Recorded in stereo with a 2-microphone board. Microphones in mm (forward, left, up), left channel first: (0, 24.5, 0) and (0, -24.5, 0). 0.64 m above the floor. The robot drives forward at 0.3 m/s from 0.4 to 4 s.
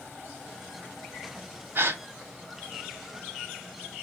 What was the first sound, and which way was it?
A gasp, 55° right (ahead or behind).